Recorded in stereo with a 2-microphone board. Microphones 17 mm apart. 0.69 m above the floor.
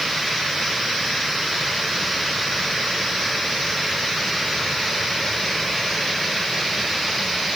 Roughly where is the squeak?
I don't hear a squeak.